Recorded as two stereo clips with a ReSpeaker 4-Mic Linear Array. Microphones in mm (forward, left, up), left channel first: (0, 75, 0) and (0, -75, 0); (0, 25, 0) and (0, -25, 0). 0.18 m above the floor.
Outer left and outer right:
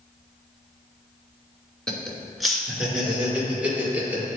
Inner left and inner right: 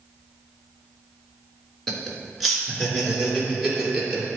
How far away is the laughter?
About 1.8 m.